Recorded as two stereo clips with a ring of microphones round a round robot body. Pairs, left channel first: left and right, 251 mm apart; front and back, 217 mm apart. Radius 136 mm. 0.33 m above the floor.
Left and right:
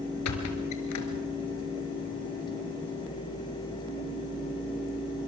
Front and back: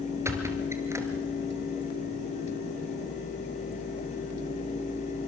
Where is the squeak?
105° left, 2.5 m.